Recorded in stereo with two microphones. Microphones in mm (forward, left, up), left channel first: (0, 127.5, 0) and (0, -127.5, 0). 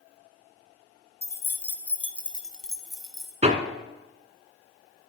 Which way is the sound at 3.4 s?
25° right (ahead or behind).